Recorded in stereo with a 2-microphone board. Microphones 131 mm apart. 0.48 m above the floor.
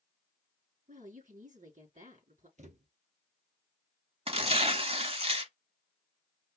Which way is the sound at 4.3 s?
50° right (ahead or behind).